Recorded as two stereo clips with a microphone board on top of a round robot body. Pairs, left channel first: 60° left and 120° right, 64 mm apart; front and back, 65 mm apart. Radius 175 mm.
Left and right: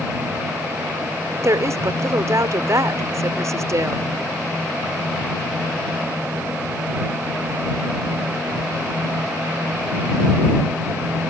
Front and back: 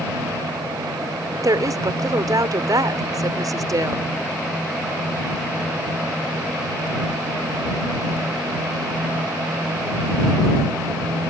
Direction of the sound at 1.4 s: 155° right.